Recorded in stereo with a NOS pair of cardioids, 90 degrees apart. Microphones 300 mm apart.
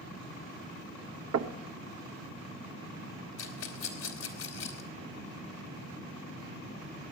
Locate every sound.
1.3 s knocking: 55° right, 1.2 m
3.4 s a rattle: 55° left, 2.5 m